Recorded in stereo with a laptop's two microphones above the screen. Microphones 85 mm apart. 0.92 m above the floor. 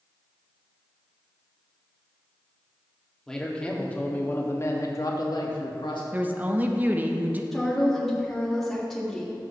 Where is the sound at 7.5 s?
5° left (ahead or behind), 1.8 m.